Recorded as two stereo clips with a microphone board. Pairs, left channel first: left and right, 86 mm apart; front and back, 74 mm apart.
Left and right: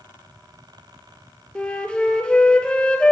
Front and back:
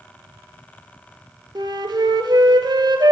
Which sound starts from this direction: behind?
A flute, at 1.6 s.